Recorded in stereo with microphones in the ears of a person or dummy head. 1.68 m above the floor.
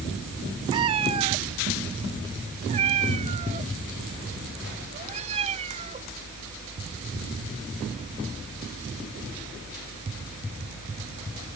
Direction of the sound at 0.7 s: 15° right (ahead or behind).